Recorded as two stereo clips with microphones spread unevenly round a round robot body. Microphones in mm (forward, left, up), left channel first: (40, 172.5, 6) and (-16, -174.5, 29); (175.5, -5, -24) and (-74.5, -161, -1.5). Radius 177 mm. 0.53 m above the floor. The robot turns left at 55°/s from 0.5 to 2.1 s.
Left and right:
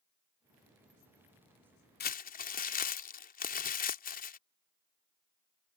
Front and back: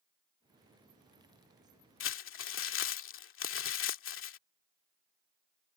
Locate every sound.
2.0 s crumpling: 35° left; by 4.4 s 30° left